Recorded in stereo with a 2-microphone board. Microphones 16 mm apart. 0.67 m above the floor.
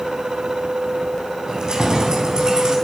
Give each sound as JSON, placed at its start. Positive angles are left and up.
{"t": 1.5, "sound": "keys jangling", "side_deg": -65, "distance_m": 3.0}